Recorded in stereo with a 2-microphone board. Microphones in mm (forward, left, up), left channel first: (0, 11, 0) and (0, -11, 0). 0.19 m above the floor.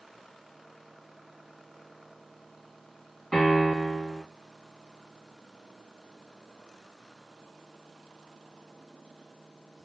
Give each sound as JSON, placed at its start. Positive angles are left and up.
{"t": 3.3, "sound": "a piano", "side_deg": 30, "distance_m": 1.9}